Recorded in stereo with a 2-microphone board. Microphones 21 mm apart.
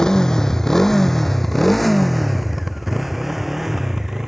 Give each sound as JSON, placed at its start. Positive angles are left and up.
{"t": 0.0, "sound": "a motorcycle", "side_deg": 25}